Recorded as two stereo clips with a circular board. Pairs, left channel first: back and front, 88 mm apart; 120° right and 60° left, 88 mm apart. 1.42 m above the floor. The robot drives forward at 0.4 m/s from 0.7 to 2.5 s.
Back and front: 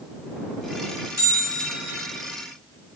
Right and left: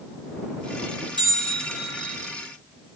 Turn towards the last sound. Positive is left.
turn(degrees=80)